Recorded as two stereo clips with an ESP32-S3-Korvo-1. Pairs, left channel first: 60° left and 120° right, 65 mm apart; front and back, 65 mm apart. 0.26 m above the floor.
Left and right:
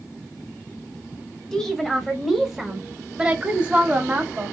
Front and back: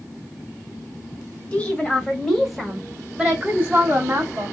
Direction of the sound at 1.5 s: 5° left.